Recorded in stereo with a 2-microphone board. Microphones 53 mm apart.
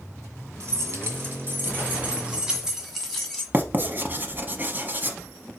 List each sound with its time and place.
0.6 s keys jangling: 55° right (ahead or behind), 1.4 m; by 3.4 s 10° left (ahead or behind), 1.2 m
3.5 s writing: 35° right (ahead or behind), 0.6 m